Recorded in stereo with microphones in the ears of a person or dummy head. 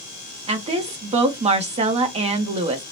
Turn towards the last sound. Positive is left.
turn(degrees=-35)  # may be behind; listen again after turning